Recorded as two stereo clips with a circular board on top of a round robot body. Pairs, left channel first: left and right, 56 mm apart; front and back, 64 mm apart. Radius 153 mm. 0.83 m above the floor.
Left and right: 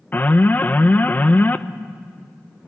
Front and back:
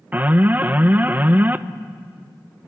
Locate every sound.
0.1 s an alarm: 130° left, 1.1 m